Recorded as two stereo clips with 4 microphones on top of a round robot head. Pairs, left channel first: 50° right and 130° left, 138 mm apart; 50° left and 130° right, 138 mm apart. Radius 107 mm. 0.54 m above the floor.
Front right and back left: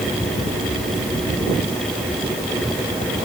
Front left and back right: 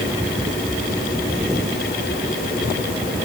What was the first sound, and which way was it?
Only background noise.